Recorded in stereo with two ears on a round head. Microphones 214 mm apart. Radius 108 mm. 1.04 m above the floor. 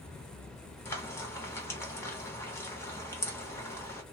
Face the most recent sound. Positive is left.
turn(degrees=10)  # may be behind; listen again after turning